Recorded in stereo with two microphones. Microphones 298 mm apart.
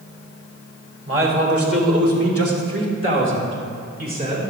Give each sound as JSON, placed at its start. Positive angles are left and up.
{"t": 1.1, "sound": "a man speaking", "side_deg": -45, "distance_m": 2.5}